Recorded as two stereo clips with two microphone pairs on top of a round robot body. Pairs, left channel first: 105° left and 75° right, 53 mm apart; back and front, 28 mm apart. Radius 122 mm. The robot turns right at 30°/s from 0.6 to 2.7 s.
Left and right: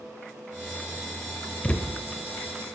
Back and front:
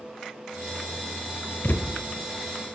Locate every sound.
1.6 s a thud: 170° left, 1.1 m; by 1.9 s straight behind, 1.1 m